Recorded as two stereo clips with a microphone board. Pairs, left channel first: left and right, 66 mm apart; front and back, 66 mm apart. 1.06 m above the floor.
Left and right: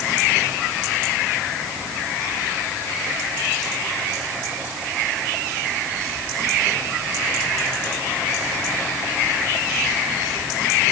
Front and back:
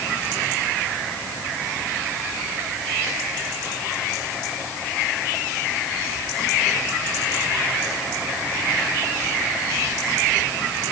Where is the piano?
I don't hear a piano.